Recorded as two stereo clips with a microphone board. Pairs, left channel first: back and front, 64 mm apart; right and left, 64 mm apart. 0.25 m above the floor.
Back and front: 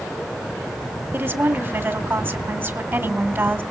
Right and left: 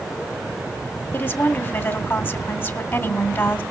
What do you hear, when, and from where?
1.1 s a woman speaking: 45° right, 1.8 m